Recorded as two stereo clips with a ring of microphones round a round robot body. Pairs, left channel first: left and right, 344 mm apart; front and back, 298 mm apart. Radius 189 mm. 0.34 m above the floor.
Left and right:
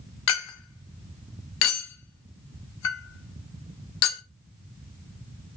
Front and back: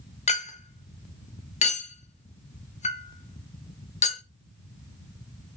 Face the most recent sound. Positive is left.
turn(degrees=65)